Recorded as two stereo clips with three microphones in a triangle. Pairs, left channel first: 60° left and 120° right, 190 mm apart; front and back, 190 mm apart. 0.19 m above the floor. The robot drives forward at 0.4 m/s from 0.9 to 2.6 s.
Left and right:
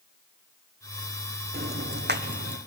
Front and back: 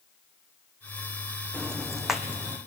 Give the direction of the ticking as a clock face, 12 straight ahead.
3 o'clock.